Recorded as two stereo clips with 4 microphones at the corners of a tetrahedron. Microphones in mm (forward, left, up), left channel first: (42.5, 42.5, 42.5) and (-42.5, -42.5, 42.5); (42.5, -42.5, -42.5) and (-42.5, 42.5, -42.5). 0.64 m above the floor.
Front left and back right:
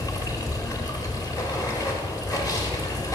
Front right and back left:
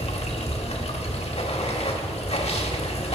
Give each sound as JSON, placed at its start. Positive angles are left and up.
{"t": 0.0, "sound": "running water", "azimuth_deg": -15, "distance_m": 0.9}